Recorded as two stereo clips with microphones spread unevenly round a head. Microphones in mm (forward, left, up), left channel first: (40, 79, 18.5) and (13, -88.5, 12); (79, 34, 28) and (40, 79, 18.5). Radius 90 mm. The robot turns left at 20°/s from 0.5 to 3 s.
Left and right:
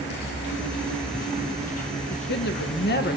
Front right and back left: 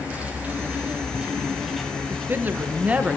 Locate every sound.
0.0 s an insect: 70° left, 7.5 m; by 3.2 s 20° left, 7.5 m
2.1 s a woman speaking: 90° left, 0.9 m; by 3.2 s 75° left, 0.9 m